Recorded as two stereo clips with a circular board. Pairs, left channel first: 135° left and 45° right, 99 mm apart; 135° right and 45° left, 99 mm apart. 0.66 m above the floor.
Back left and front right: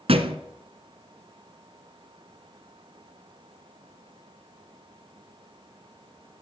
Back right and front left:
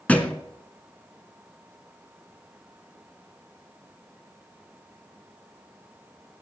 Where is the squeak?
I don't hear a squeak.